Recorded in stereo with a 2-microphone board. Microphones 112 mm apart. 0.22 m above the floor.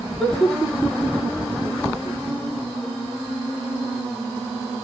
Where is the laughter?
Centre (ahead or behind), 4 m.